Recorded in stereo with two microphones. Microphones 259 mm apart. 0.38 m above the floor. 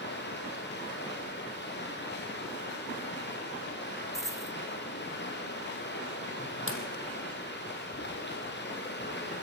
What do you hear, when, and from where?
0.0 s running water: 40° left (ahead or behind), 5 m
4.1 s a dropped coin: 10° right (ahead or behind), 1.3 m
6.7 s a pop: 50° right (ahead or behind), 3.5 m